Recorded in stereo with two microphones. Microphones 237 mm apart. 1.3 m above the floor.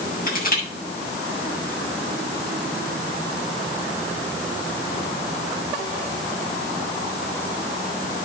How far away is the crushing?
About 7 m.